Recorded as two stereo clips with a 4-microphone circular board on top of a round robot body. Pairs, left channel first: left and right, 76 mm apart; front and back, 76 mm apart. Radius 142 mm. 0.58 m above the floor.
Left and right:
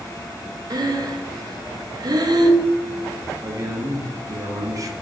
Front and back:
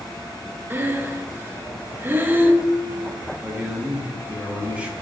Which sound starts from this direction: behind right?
Breathing, at 0.7 s.